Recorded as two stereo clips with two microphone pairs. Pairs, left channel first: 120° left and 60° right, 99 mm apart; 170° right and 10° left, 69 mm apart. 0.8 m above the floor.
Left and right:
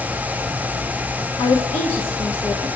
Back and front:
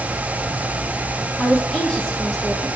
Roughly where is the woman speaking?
Behind left.